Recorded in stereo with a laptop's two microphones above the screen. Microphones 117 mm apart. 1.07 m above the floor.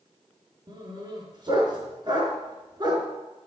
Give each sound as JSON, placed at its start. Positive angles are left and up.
{"t": 0.7, "sound": "a dog barking", "side_deg": -40, "distance_m": 5.0}